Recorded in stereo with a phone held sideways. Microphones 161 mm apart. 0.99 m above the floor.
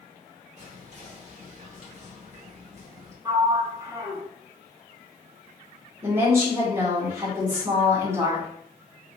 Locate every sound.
0.6 s whispering: 45° right (ahead or behind), 1.2 m
3.2 s a sliding door: 20° right (ahead or behind), 0.6 m
6.0 s a woman speaking: 15° right (ahead or behind), 1.6 m